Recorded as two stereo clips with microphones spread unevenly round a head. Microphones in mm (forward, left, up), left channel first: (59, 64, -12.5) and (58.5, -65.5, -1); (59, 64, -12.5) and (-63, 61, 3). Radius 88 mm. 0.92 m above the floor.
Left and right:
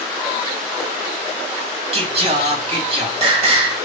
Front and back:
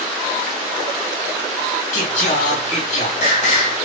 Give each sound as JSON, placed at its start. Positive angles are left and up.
{"t": 1.9, "sound": "singing", "azimuth_deg": -50, "distance_m": 2.5}